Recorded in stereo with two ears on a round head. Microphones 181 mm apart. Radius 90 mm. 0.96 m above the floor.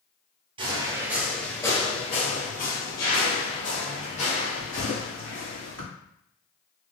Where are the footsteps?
25° right (ahead or behind), 1.1 m; by 5.9 s 75° left (ahead or behind), 3.5 m.